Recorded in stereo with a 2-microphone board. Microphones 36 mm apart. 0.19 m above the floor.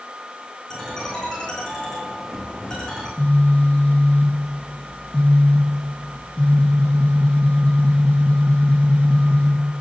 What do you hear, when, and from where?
0.7 s a ringtone: 15° left (ahead or behind), 8 m
3.2 s a phone buzzing: 35° left (ahead or behind), 3 m